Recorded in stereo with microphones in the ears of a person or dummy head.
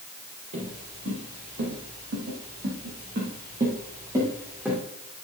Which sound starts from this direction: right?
Footsteps, at 0.5 s.